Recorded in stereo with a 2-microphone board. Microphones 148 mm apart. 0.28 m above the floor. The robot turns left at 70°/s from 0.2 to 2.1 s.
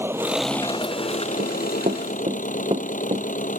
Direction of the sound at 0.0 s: 165° right.